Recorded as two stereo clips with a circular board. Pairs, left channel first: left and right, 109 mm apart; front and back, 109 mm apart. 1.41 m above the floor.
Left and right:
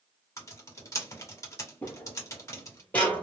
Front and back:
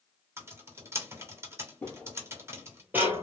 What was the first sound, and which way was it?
Typing on a keyboard, 130° left.